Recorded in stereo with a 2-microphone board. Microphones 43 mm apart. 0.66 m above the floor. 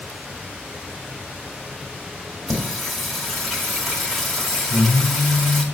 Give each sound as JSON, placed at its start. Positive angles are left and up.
{"t": 2.5, "sound": "singing", "side_deg": 10, "distance_m": 1.9}